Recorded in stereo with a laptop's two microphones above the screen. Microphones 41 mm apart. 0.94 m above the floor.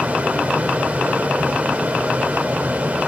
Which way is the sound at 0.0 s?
40° right (ahead or behind).